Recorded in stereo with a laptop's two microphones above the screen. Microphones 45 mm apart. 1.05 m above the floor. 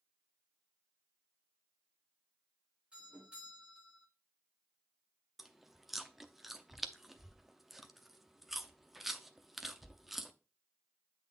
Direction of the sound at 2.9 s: 20° right (ahead or behind).